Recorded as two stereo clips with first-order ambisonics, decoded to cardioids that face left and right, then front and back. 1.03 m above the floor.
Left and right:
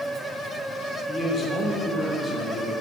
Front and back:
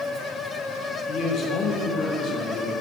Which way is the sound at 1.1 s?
30° left.